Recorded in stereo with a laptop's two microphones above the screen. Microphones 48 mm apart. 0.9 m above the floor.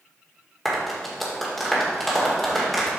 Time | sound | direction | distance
0.7 | a clap | 5° left (ahead or behind) | 1.6 m